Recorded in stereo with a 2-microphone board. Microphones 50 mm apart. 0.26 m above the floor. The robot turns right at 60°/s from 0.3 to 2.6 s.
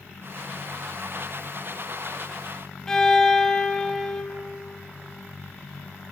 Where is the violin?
10° left (ahead or behind), 0.6 m.